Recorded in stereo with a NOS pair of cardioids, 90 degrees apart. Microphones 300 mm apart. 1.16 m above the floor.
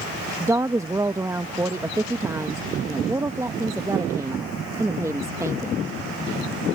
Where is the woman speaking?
10° right.